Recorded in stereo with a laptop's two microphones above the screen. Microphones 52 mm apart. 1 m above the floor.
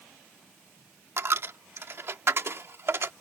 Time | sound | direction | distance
1.2 | a dropped coin | 55° right (ahead or behind) | ?